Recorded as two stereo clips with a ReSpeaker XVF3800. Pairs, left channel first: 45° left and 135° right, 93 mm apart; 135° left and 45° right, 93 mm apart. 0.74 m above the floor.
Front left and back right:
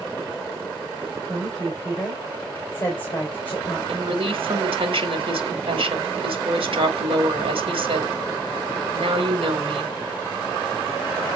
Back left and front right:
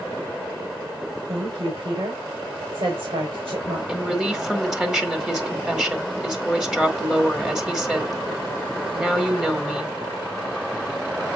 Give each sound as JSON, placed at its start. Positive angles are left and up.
{"t": 1.3, "sound": "a woman speaking", "azimuth_deg": -25, "distance_m": 3.5}
{"t": 3.9, "sound": "a woman speaking", "azimuth_deg": -125, "distance_m": 2.0}